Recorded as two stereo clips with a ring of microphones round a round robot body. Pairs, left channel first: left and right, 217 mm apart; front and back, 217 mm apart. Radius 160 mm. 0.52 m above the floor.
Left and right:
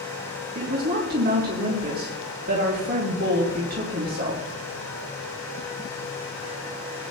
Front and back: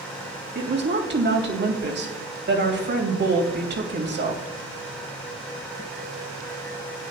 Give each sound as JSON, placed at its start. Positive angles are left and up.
{"t": 0.6, "sound": "a woman speaking", "azimuth_deg": -145, "distance_m": 3.0}